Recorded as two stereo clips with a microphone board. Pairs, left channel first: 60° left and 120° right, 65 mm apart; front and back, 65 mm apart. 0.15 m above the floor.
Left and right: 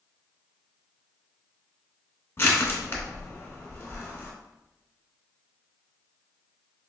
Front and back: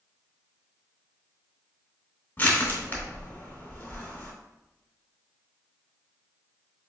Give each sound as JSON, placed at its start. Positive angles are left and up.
{"t": 2.4, "sound": "crushing", "azimuth_deg": 35, "distance_m": 1.1}